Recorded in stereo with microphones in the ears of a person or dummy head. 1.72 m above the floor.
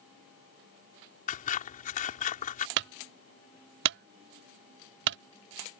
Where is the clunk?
60° right (ahead or behind).